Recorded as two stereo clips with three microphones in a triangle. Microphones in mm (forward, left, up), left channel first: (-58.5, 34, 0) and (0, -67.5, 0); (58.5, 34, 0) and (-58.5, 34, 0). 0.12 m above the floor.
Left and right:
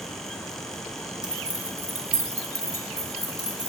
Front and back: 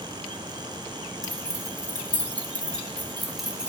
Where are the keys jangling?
20° left, 0.9 m; by 3.7 s 95° right, 1.2 m.